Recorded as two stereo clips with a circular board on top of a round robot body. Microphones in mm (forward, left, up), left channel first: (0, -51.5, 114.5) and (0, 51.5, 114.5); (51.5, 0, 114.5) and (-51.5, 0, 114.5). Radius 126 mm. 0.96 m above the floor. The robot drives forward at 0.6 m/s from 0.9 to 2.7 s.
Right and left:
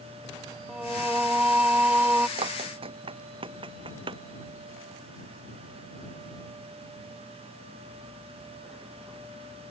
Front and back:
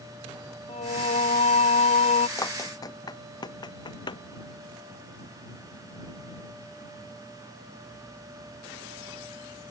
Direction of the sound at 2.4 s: 60° left.